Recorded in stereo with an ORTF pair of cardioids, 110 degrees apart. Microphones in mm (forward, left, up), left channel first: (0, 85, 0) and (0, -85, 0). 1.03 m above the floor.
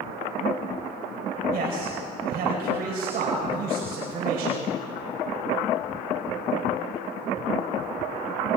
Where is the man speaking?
65° right, 5 m.